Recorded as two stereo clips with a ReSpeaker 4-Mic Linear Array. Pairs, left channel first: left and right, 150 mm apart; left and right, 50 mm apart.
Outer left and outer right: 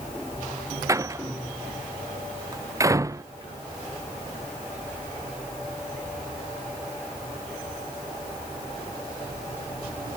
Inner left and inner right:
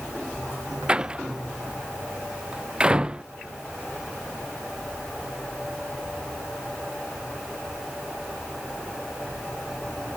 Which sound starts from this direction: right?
A door slam, at 0.9 s.